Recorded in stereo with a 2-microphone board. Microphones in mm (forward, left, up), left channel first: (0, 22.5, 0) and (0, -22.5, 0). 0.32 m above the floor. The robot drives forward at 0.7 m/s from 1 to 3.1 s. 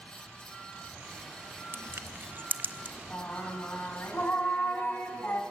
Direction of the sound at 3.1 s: 55° left (ahead or behind).